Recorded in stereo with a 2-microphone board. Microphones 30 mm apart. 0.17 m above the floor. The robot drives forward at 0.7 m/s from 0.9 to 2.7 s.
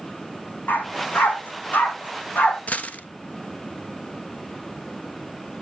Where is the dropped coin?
50° left (ahead or behind), 1.1 m.